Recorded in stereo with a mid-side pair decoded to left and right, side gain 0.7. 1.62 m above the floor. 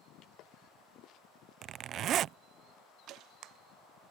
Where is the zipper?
45° right.